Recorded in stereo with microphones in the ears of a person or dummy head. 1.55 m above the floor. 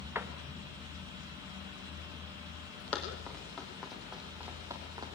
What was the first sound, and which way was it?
A door slam, 10° right (ahead or behind).